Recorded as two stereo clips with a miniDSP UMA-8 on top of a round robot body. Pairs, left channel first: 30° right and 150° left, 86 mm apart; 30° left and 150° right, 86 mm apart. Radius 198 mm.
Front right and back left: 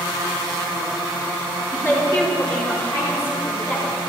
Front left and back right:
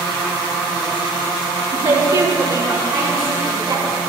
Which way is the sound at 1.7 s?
100° right.